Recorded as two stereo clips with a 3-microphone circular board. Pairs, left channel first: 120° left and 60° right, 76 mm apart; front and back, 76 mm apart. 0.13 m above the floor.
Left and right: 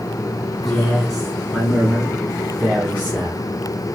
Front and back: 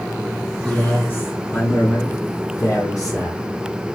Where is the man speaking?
30° left, 1.2 m; by 3.5 s 5° right, 2 m.